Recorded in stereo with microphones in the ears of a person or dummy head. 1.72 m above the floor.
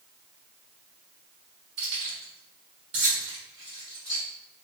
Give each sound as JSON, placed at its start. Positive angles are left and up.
{"t": 1.8, "sound": "keys jangling", "side_deg": -50, "distance_m": 1.3}